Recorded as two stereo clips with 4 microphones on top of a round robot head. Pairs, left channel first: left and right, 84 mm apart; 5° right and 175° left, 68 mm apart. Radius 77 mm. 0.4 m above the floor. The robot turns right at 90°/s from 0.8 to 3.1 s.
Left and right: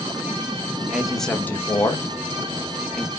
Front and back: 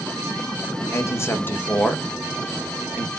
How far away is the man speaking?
About 1.1 m.